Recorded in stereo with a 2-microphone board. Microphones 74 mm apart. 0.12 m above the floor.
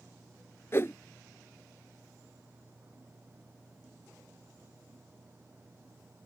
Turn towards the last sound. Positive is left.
turn(degrees=35)  # may be behind; listen again after turning